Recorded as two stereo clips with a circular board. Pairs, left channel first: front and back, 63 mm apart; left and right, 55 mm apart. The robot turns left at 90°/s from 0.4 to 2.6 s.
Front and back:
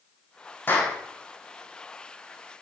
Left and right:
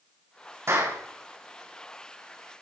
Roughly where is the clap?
Ahead right.